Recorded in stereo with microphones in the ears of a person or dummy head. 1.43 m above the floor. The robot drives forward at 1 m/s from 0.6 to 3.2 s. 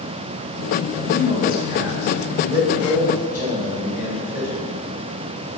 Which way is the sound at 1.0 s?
35° right (ahead or behind).